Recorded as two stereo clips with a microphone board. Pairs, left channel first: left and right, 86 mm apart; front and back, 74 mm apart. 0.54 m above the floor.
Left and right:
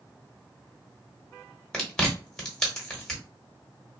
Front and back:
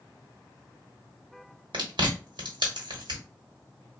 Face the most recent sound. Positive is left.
turn(degrees=175)